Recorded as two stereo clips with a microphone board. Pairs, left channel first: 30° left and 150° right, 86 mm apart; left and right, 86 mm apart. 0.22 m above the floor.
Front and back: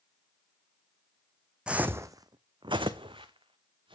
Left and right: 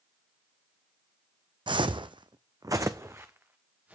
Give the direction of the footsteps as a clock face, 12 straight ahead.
2 o'clock.